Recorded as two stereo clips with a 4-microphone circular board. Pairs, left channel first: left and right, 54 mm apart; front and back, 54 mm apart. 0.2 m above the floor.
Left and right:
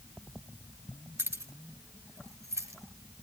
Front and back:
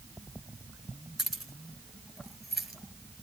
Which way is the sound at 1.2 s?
85° right.